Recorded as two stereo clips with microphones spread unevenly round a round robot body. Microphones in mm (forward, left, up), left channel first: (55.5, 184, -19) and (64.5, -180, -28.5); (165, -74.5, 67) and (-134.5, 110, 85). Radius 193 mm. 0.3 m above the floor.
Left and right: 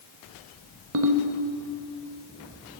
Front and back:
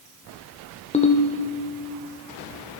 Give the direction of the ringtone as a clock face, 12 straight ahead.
3 o'clock.